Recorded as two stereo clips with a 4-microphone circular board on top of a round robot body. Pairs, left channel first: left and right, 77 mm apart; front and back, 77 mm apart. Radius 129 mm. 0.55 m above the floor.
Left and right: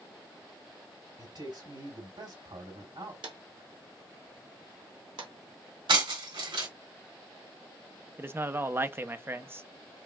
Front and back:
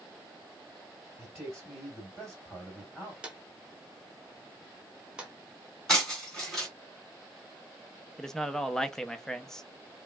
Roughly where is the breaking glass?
Right.